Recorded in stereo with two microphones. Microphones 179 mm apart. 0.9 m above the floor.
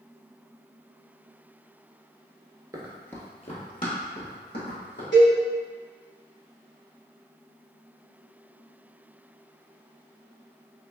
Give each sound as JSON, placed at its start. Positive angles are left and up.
{"t": 2.7, "sound": "running footsteps", "side_deg": -20, "distance_m": 0.9}
{"t": 5.1, "sound": "a cowbell", "side_deg": 90, "distance_m": 1.8}